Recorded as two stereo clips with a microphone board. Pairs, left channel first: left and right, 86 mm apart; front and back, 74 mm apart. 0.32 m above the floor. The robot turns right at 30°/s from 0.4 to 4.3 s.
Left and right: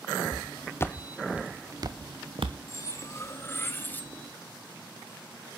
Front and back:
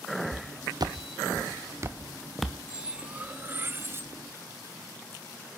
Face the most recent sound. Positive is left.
turn(degrees=155)